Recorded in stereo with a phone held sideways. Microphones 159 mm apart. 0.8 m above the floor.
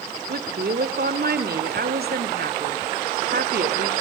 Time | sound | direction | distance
0.3 | a woman speaking | 80° right | 2.5 m